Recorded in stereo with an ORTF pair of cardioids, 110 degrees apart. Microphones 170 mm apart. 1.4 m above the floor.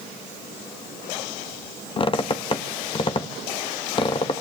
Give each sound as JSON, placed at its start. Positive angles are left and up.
{"t": 2.0, "sound": "a squeak", "azimuth_deg": 35, "distance_m": 1.3}